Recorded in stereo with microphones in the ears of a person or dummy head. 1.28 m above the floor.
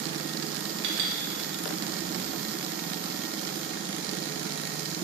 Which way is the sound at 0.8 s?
85° right.